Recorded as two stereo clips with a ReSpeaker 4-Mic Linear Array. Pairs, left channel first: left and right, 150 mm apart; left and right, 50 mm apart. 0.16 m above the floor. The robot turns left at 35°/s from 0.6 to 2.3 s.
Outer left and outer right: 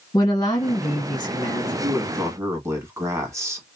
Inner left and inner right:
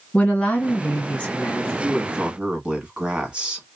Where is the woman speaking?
100° left, 1.6 m; by 1.7 s 60° left, 1.6 m.